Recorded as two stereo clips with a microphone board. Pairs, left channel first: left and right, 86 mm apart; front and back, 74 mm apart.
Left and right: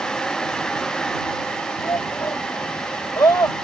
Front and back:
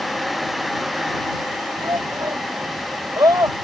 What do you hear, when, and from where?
1.8 s a shout: 140° left